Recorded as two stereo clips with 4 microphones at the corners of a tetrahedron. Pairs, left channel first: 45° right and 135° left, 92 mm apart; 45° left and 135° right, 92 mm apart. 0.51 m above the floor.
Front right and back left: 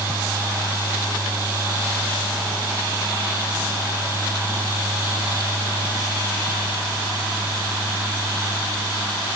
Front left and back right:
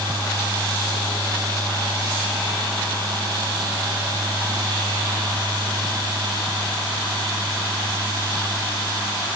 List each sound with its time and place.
Only background noise.